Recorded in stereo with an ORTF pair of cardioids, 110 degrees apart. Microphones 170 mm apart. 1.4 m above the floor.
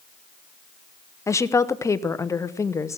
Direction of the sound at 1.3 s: 15° left.